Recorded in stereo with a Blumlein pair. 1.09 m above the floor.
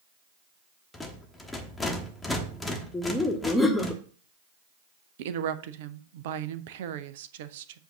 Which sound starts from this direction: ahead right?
A woman speaking, at 5.2 s.